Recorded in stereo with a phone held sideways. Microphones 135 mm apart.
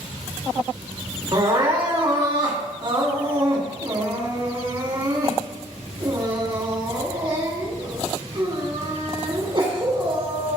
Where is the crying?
40° right (ahead or behind), 2.5 m.